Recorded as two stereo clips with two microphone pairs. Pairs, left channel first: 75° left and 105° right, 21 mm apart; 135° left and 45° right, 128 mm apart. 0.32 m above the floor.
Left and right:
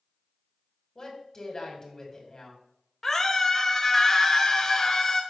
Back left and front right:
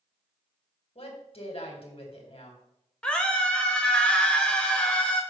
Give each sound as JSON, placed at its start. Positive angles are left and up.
{"t": 0.9, "sound": "a woman speaking", "azimuth_deg": 125, "distance_m": 2.0}
{"t": 3.0, "sound": "a scream", "azimuth_deg": 75, "distance_m": 0.9}